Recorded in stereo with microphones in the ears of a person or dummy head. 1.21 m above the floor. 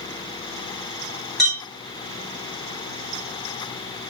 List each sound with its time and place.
1.4 s a clink: centre (ahead or behind), 0.8 m